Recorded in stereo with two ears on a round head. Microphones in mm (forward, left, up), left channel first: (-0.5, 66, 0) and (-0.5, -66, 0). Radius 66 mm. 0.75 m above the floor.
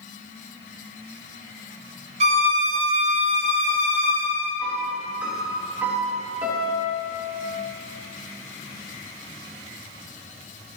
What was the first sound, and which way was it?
A violin, 45° right (ahead or behind).